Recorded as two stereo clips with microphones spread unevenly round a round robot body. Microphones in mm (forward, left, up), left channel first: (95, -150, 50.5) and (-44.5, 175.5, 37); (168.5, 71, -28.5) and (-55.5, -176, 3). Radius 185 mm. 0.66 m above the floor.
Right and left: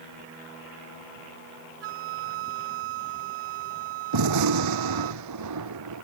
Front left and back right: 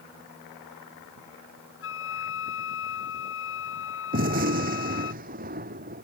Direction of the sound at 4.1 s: 160° left.